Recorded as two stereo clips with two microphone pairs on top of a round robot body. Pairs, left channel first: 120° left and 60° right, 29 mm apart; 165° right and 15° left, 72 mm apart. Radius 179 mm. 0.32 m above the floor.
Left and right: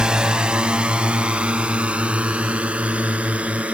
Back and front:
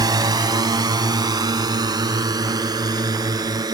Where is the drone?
Straight ahead; by 3.7 s 15° right.